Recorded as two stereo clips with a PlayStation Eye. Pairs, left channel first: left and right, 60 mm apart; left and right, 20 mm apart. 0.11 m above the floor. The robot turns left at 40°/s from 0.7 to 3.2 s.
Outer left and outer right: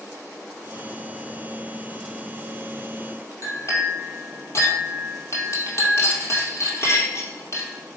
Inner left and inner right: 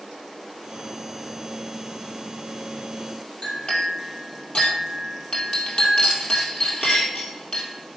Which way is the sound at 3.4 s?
55° left (ahead or behind).